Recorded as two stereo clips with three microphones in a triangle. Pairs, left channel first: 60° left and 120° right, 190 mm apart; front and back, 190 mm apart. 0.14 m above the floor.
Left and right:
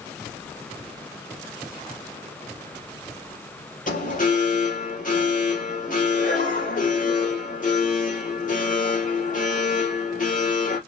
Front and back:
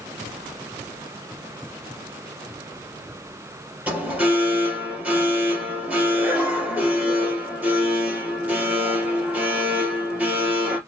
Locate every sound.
3.9 s an alarm: 100° left, 3.5 m